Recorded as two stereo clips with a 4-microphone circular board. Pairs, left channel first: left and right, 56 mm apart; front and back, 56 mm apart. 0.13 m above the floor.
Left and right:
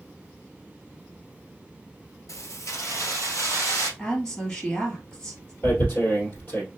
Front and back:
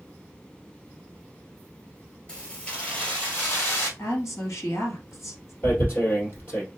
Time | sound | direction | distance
2.3 | keys jangling | 75° left | 1.4 m
4.0 | a woman speaking | 20° left | 1.9 m
5.6 | tearing paper | 45° left | 2.5 m